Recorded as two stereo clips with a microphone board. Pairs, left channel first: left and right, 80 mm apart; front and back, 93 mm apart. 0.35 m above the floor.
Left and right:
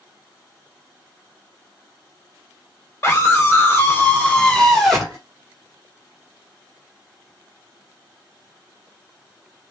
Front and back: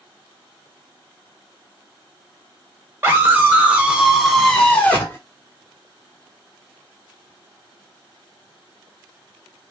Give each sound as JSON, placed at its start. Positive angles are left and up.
{"t": 3.0, "sound": "a scream", "azimuth_deg": 125, "distance_m": 2.0}